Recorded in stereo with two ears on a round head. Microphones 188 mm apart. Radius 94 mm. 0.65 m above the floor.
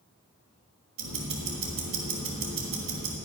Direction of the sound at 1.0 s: 70° right (ahead or behind).